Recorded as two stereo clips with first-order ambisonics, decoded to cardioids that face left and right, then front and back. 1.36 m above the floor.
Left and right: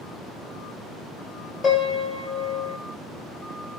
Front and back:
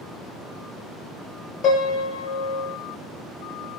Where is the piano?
30° left, 1.7 m.